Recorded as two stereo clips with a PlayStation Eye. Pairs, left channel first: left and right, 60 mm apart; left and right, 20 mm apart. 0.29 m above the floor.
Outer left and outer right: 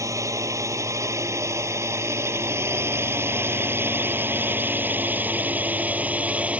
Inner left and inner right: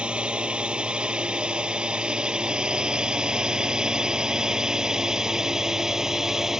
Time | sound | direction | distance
0.0 | a drone | 65° right (ahead or behind) | ?